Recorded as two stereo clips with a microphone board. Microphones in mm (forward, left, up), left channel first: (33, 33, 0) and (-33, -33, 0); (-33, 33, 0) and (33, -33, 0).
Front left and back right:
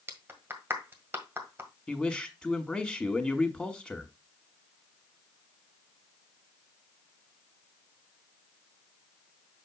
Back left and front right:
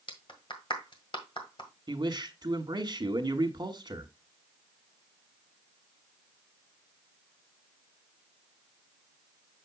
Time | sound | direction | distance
0.1 | a clap | 160° left | 1.7 m
1.9 | a man speaking | 40° right | 1.5 m